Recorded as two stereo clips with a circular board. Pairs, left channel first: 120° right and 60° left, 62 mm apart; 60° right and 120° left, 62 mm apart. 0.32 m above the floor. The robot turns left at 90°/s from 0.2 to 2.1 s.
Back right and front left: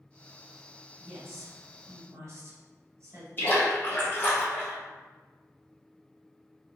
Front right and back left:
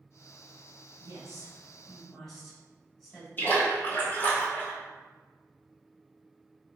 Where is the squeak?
No squeak in this recording.